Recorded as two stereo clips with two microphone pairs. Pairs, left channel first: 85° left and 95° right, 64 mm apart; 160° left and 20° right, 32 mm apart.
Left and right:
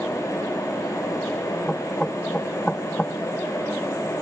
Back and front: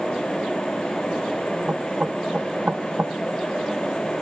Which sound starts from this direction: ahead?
Knocking, at 1.7 s.